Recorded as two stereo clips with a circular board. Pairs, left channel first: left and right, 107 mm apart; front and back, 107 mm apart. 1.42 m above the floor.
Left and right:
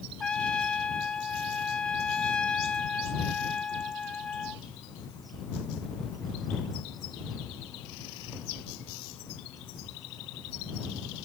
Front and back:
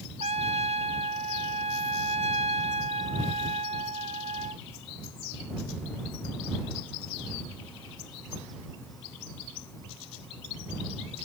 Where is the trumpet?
170° left.